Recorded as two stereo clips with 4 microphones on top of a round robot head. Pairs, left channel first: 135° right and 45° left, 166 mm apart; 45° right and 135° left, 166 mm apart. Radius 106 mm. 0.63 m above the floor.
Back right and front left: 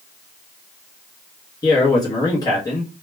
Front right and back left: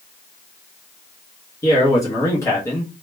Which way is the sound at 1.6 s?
95° right.